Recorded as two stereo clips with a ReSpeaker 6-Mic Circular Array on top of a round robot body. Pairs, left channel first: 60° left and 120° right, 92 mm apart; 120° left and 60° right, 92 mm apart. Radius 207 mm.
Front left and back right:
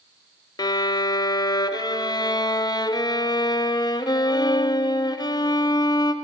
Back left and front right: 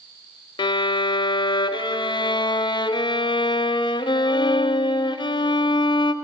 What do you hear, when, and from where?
0.6 s a violin: 95° left, 0.9 m